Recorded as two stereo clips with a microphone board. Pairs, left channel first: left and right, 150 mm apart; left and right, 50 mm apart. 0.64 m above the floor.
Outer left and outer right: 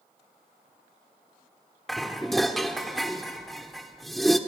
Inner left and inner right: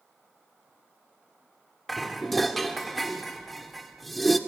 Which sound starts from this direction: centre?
Dishes clattering, at 1.9 s.